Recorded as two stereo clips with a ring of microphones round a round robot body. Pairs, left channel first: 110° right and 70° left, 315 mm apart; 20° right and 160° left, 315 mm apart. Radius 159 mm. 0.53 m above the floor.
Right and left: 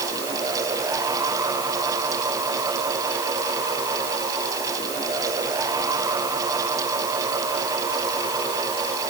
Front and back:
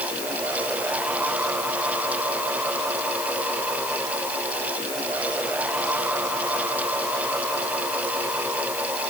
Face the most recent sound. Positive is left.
No sound to turn to.